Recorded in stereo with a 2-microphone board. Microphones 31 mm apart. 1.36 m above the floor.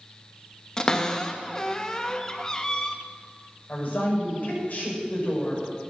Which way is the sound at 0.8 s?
20° left (ahead or behind).